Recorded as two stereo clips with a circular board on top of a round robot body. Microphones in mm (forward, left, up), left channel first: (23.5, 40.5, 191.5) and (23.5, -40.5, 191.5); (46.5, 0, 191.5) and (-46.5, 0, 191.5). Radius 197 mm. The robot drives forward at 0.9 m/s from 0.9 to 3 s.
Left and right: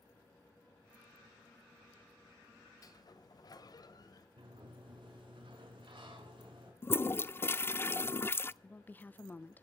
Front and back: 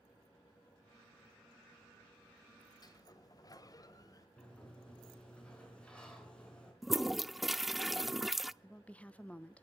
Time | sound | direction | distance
2.8 | a sliding door | 45° left | 1.6 m
4.4 | a sliding door | 80° right | 5.5 m
6.8 | a toilet flushing | 95° left | 0.7 m
8.6 | a woman speaking | 60° left | 1.1 m